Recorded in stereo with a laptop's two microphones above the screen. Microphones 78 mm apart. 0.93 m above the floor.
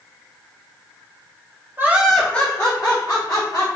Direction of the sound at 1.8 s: 30° right (ahead or behind).